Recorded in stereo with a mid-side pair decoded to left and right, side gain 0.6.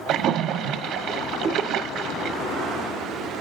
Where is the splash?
65° right, 1.2 m.